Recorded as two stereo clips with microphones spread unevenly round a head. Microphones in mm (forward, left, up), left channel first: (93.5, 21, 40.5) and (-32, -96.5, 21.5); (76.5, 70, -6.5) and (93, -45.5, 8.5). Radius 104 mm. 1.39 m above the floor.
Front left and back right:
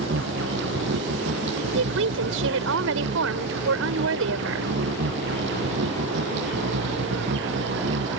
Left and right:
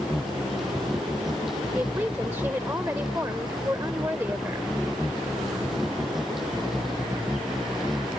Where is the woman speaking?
160° right.